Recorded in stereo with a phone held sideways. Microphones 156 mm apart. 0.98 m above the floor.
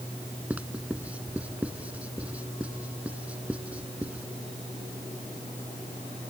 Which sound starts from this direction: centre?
Writing, at 0.5 s.